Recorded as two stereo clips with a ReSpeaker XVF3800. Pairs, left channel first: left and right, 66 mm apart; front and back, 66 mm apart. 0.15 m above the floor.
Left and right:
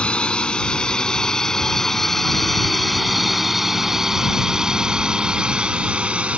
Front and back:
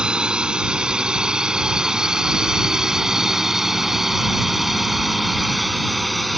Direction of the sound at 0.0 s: 130° left.